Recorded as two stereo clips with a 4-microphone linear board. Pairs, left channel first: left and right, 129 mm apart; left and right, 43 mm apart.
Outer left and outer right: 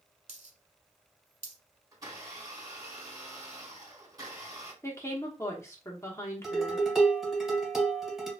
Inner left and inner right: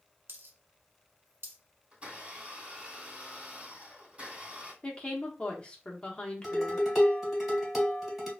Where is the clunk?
I don't hear a clunk.